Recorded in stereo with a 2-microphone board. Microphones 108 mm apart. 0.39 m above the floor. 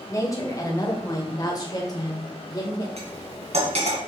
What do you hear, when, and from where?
0.1 s a woman speaking: 30° left (ahead or behind), 1.9 m; by 2.9 s 35° left (ahead or behind), 1.5 m
3.0 s cutlery clinking: 80° right, 2 m